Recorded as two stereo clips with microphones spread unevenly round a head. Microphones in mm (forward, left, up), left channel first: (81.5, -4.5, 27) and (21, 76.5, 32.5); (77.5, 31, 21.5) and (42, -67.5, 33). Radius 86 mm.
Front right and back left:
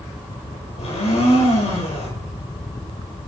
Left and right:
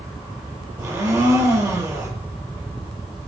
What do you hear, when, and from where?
0.8 s a blender: 55° right, 7 m